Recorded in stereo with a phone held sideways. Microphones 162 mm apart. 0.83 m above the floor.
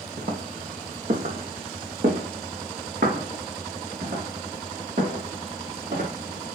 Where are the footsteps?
65° right (ahead or behind), 1.9 m; by 6.1 s 70° right (ahead or behind), 5 m.